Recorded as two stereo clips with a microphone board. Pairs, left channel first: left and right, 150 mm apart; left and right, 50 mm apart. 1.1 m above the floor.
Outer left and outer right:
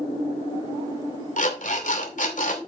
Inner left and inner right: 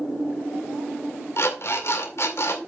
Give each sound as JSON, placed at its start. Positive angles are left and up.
{"t": 1.4, "sound": "an alarm clock", "side_deg": 60, "distance_m": 2.5}